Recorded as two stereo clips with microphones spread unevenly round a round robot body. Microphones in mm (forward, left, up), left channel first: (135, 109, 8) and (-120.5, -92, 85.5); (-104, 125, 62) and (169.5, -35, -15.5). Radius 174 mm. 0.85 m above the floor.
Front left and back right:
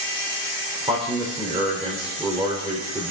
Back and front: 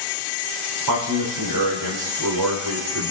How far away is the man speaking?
About 2.5 m.